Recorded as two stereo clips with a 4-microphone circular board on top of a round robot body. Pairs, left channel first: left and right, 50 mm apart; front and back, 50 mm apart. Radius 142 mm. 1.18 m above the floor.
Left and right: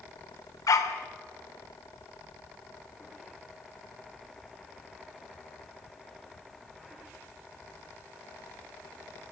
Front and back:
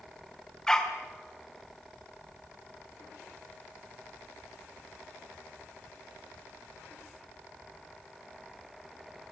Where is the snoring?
I don't hear snoring.